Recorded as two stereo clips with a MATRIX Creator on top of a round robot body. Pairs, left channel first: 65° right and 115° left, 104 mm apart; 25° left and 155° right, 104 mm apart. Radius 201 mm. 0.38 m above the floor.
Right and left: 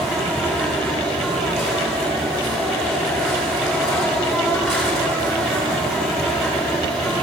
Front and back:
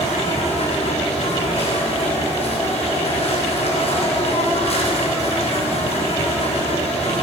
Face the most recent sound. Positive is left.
turn(degrees=25)